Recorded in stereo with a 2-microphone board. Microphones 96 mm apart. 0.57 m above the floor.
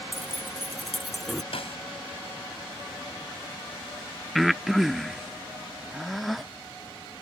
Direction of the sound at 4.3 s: Centre (ahead or behind).